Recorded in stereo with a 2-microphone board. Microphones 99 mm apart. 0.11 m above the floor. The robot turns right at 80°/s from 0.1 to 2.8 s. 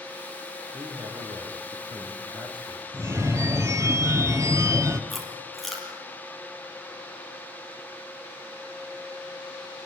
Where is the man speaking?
155° right, 7 m; by 2.8 s 10° left, 7 m.